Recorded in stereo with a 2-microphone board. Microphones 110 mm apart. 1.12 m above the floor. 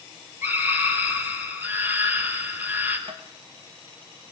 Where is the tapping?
65° right (ahead or behind), 1.5 m.